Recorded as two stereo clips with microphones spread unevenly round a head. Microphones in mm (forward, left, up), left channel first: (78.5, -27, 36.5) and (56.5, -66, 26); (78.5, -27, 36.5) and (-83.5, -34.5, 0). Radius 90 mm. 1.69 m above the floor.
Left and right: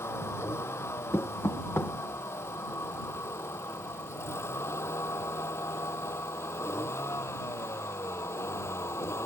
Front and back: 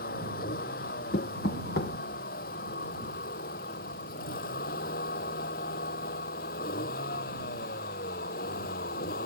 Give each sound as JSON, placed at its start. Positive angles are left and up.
{"t": 0.0, "sound": "a vehicle", "azimuth_deg": 45}
{"t": 1.1, "sound": "knocking", "azimuth_deg": 40}